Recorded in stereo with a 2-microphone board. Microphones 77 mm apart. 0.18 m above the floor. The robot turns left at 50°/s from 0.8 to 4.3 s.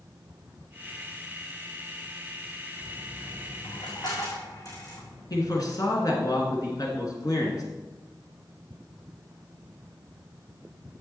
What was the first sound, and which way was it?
A dropped coin, 55° left (ahead or behind).